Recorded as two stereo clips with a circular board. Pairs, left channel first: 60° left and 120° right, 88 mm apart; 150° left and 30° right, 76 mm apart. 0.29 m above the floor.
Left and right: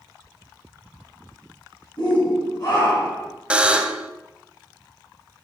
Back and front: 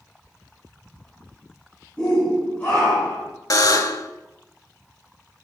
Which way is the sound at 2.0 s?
75° left.